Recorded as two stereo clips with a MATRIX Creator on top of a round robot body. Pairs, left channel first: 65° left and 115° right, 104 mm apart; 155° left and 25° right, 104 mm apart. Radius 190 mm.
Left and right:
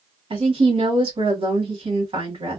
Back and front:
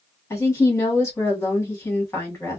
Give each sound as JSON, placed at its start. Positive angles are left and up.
{"t": 0.3, "sound": "a woman speaking", "azimuth_deg": -140, "distance_m": 1.6}